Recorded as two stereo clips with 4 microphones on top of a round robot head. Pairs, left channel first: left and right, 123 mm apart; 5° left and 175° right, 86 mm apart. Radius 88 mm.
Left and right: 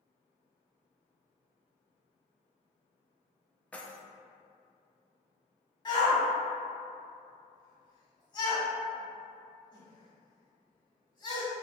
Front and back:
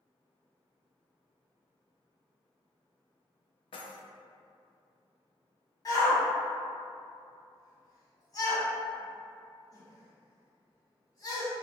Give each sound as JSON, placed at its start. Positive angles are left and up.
{"t": 3.7, "sound": "keys jangling", "azimuth_deg": 10, "distance_m": 0.5}
{"t": 5.8, "sound": "a shout", "azimuth_deg": 40, "distance_m": 1.8}